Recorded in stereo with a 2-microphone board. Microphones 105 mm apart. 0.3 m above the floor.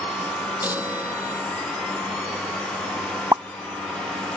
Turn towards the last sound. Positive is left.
turn(degrees=-30)  # may be behind; listen again after turning